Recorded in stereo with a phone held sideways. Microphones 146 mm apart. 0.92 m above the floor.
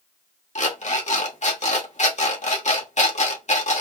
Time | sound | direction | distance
0.6 | an alarm clock | 55° left (ahead or behind) | 1.1 m